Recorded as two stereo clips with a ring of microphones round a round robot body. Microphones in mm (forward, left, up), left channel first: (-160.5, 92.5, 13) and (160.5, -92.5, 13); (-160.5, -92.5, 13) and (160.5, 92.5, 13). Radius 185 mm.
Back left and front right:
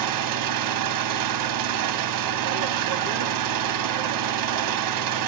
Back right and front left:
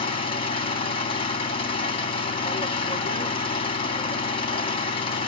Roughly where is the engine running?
Right.